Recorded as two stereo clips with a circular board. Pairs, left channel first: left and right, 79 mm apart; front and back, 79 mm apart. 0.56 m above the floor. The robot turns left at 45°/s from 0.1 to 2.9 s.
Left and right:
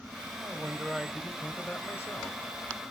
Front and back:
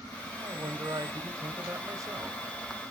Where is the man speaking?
145° right, 1.6 m; by 2.4 s 125° left, 1.6 m.